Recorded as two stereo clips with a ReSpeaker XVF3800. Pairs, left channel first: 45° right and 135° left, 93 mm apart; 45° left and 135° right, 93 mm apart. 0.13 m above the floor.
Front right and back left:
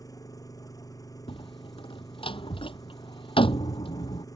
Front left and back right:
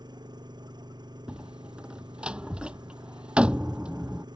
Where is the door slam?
55° right.